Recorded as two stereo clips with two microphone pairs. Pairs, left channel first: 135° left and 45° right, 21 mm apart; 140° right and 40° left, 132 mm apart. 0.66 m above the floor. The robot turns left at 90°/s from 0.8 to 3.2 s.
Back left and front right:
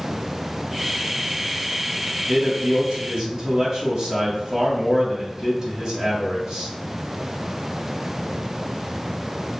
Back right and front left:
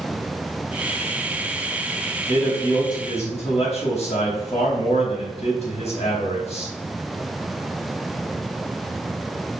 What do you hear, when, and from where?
2.3 s a man speaking: 25° right, 3.5 m; by 6.7 s 110° right, 3.5 m